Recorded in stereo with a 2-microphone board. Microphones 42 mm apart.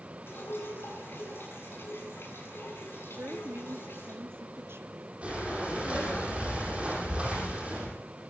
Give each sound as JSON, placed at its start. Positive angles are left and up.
{"t": 0.3, "sound": "dripping", "side_deg": 65, "distance_m": 8.5}
{"t": 3.1, "sound": "a woman speaking", "side_deg": -70, "distance_m": 2.5}
{"t": 5.2, "sound": "breathing", "side_deg": -30, "distance_m": 9.5}